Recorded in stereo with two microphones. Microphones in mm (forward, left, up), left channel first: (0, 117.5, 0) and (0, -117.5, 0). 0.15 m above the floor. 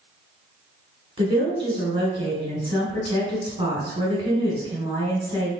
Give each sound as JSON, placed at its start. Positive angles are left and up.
{"t": 1.2, "sound": "a woman speaking", "side_deg": -20, "distance_m": 1.7}